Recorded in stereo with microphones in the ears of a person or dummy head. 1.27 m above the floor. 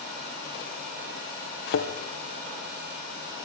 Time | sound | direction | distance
1.7 | a thud | 50° left (ahead or behind) | 2.5 m